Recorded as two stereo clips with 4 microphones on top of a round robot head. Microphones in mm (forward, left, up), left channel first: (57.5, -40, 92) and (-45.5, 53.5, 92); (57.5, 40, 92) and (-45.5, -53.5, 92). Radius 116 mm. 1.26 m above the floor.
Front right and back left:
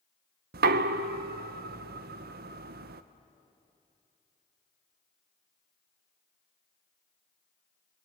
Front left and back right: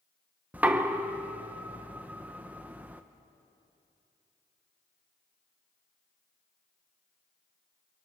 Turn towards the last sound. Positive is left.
turn(degrees=140)